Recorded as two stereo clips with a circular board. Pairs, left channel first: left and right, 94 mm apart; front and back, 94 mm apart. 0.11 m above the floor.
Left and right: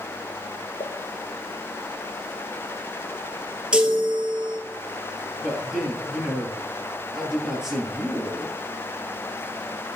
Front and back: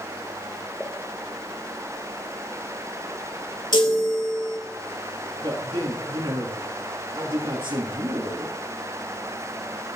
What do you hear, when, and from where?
0.8 s a pop: 85° left, 1.3 m
3.7 s a chime: 15° right, 1.4 m
5.4 s a man speaking: 175° right, 3 m